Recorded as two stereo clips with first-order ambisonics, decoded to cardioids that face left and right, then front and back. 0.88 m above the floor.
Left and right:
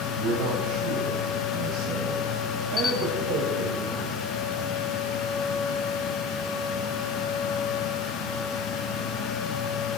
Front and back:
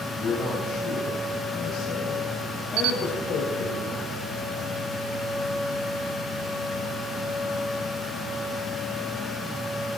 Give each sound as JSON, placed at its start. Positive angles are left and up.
{"t": 0.1, "sound": "a man speaking", "azimuth_deg": -75, "distance_m": 5.0}
{"t": 2.8, "sound": "a camera shutter", "azimuth_deg": 155, "distance_m": 1.1}